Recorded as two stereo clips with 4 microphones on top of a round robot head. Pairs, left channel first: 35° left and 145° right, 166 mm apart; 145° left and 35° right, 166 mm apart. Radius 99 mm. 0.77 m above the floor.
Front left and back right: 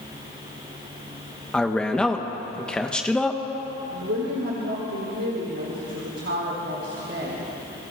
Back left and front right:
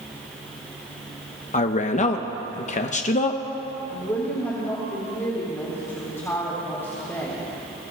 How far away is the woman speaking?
About 3 m.